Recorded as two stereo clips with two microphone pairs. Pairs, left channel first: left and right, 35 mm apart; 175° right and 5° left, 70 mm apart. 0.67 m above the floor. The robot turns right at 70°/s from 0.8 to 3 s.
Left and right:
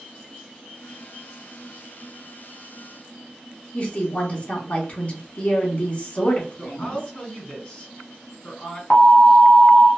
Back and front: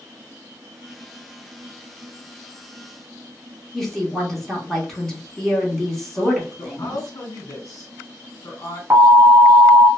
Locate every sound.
3.7 s a woman speaking: 105° left, 1.1 m
6.6 s a woman speaking: 150° left, 1.7 m
8.9 s an alarm: 50° left, 1.0 m